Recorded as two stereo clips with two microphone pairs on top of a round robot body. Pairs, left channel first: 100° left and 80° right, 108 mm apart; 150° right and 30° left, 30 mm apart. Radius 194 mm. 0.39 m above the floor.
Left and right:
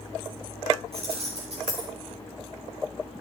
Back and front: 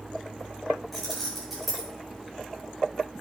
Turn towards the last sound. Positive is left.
turn(degrees=-55)